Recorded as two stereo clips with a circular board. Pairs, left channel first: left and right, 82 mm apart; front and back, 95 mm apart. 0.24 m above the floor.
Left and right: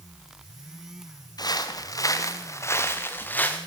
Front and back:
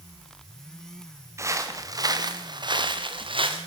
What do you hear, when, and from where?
1.4 s footsteps: 120° left, 3 m; by 3.6 s 160° left, 3 m